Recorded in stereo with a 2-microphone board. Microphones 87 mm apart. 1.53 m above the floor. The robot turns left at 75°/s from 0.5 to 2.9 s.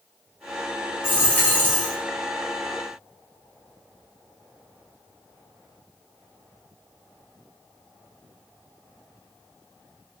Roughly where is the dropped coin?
Left.